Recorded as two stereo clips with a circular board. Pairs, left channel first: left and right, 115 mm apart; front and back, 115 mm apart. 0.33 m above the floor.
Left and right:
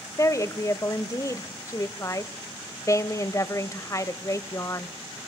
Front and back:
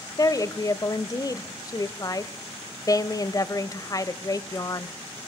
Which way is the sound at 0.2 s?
40° left.